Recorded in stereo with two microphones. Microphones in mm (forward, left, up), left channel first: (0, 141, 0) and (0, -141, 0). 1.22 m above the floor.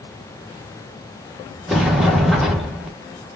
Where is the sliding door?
Centre (ahead or behind), 1.3 m.